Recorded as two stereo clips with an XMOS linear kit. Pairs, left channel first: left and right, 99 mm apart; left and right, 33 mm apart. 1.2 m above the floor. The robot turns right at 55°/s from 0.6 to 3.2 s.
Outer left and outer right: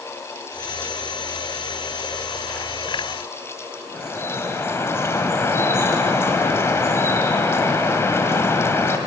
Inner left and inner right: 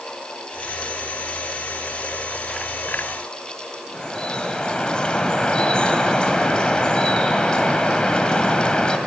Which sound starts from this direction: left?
Dripping, at 3.9 s.